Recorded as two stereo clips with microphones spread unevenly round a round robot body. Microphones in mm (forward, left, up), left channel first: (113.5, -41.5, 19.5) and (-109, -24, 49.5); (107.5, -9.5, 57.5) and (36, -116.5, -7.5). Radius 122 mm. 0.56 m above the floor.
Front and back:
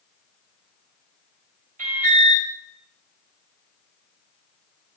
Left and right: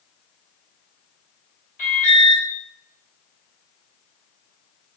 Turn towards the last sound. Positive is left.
turn(degrees=115)